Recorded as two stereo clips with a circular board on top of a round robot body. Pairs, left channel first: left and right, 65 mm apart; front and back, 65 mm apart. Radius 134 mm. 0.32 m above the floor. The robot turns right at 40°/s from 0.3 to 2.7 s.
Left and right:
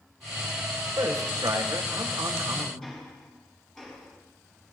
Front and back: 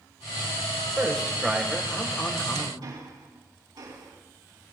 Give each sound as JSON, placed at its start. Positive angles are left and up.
{"t": 1.0, "sound": "a man speaking", "azimuth_deg": -110, "distance_m": 2.5}
{"t": 2.8, "sound": "ticking", "azimuth_deg": 175, "distance_m": 4.5}